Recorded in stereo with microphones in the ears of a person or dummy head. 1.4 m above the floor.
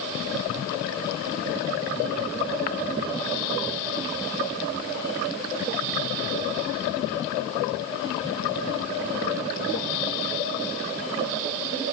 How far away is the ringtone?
No ringtone in this recording.